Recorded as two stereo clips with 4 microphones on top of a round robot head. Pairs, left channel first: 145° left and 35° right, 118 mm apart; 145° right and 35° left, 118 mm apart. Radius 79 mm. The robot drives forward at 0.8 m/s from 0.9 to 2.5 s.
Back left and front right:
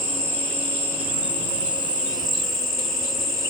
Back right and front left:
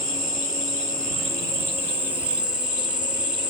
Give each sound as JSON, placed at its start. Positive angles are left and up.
{"t": 0.0, "sound": "an insect", "azimuth_deg": -15, "distance_m": 2.5}